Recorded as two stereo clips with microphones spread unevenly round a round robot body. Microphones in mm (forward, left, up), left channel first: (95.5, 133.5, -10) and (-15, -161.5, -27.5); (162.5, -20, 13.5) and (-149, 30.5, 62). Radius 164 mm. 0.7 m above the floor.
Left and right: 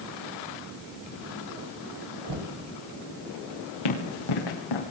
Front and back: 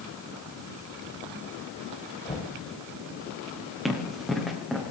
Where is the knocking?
85° right, 4 m.